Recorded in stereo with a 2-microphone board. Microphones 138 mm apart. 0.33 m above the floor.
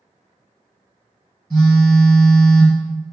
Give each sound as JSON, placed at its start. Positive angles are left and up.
{"t": 1.5, "sound": "a phone buzzing", "side_deg": 10, "distance_m": 1.8}